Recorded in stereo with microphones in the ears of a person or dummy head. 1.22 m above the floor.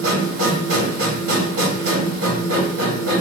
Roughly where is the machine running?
Right.